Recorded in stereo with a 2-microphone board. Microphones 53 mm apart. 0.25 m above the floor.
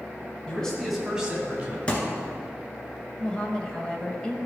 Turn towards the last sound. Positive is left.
turn(degrees=20)  # may be behind; listen again after turning